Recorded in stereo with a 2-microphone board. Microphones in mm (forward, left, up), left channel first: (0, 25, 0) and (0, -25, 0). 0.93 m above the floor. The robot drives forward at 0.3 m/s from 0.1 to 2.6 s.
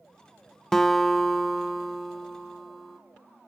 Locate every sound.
0.7 s a guitar: 10° left (ahead or behind), 0.5 m; by 3.0 s 5° left (ahead or behind), 1.0 m